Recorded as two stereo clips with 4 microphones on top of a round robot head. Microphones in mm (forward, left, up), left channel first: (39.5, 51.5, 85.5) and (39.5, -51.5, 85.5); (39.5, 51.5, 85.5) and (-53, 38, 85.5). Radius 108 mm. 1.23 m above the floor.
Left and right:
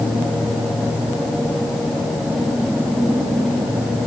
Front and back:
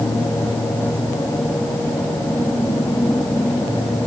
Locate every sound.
Only background noise.